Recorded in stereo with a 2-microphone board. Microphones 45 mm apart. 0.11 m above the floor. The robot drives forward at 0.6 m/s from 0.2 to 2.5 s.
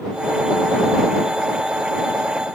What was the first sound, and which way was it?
Only background noise.